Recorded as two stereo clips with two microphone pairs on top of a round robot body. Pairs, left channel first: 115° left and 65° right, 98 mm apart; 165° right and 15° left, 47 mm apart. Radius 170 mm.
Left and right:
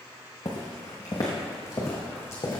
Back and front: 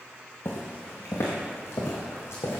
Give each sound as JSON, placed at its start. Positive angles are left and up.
{"t": 0.5, "sound": "footsteps", "azimuth_deg": 165, "distance_m": 1.2}